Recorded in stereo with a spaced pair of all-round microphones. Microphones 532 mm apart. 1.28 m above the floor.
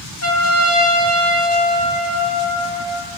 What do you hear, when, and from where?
0.2 s a trumpet: 30° left (ahead or behind), 3 m